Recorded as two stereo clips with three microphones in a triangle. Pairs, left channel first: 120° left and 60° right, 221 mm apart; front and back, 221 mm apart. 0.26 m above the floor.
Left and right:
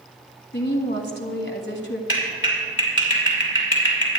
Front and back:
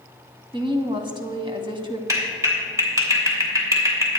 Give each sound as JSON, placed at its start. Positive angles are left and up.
{"t": 0.5, "sound": "a woman speaking", "azimuth_deg": 120, "distance_m": 1.6}
{"t": 2.1, "sound": "a clap", "azimuth_deg": 105, "distance_m": 3.0}